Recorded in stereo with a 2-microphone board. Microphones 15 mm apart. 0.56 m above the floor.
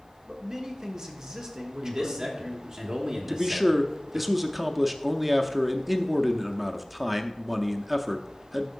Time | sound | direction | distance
0.3 | a man speaking | 45° right (ahead or behind) | 1.3 m
1.8 | a man speaking | 50° right (ahead or behind) | 1.7 m
3.3 | a man speaking | 5° right (ahead or behind) | 0.6 m